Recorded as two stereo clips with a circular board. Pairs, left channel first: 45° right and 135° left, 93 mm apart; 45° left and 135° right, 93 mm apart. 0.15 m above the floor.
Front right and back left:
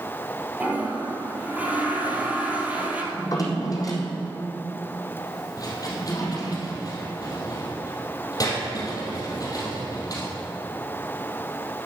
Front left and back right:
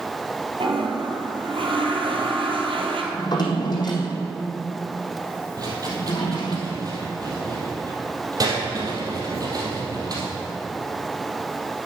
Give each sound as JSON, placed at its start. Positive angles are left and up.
{"t": 0.6, "sound": "a toilet flushing", "azimuth_deg": -150, "distance_m": 1.6}
{"t": 3.1, "sound": "a drawer", "azimuth_deg": 5, "distance_m": 2.0}
{"t": 5.6, "sound": "a rattle", "azimuth_deg": -90, "distance_m": 3.0}